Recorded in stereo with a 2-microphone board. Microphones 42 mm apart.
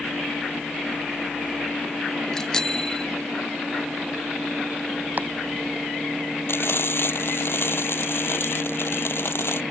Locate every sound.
2.3 s a bicycle bell: 15° left (ahead or behind)
5.2 s chopping: 45° right (ahead or behind)
6.5 s frying: 65° left (ahead or behind)